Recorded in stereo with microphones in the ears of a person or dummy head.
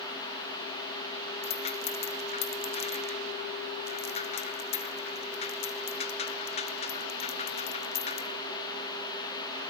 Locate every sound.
1.4 s a rattle: 25° left (ahead or behind), 0.6 m